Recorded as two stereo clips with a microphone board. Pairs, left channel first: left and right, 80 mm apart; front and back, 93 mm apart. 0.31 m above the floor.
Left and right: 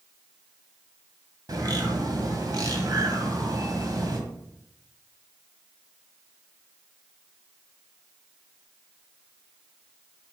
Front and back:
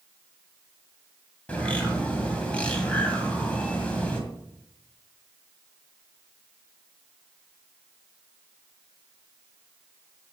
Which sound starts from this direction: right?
A bird, at 1.5 s.